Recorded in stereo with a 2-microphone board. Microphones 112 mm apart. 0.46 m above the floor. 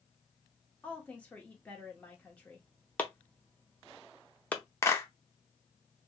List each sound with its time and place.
0.8 s a woman speaking: 15° left (ahead or behind), 1.0 m
3.0 s chopping: 15° left (ahead or behind), 0.6 m
4.8 s a clap: 25° left (ahead or behind), 0.6 m